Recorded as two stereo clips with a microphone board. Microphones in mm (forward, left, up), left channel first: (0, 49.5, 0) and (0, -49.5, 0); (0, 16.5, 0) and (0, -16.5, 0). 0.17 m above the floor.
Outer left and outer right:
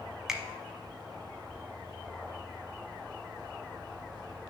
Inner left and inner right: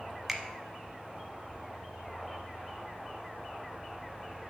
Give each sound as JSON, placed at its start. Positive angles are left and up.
{"t": 0.3, "sound": "a finger snap", "side_deg": -5, "distance_m": 0.8}